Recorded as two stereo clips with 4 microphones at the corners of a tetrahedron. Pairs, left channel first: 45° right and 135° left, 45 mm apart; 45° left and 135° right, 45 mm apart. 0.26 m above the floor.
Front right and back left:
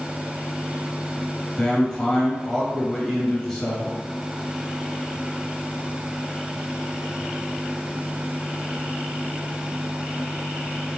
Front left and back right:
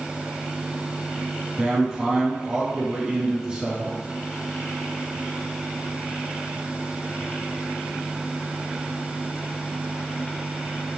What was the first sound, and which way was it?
A man speaking, 100° right.